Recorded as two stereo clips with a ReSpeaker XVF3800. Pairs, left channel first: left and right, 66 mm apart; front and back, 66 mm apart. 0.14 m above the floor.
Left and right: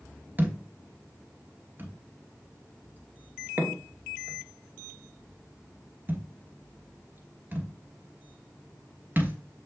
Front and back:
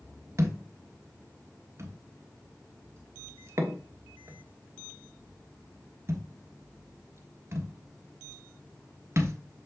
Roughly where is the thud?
Behind right.